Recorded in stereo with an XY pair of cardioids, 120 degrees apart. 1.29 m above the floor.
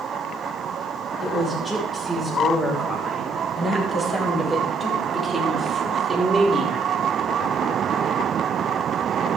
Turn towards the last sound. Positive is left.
turn(degrees=-15)